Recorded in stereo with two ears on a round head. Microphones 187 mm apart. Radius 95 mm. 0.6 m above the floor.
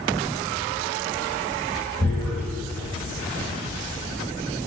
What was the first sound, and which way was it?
Tearing paper, 5° left (ahead or behind).